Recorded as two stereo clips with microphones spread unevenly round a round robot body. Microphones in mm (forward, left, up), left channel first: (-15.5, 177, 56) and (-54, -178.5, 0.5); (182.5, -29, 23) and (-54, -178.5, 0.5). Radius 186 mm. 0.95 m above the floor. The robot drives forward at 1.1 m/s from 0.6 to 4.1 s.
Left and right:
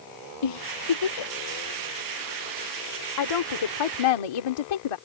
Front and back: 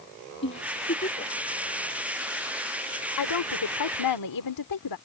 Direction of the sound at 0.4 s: 95° left.